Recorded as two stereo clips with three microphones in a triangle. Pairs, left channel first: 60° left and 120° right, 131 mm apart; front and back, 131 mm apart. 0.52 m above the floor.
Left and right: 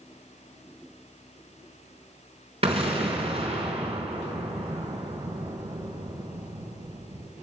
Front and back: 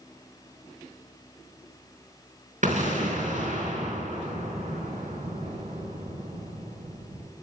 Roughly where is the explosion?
Behind.